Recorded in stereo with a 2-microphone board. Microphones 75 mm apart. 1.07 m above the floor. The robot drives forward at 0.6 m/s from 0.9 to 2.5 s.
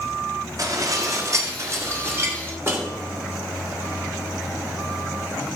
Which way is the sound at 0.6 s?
50° right (ahead or behind).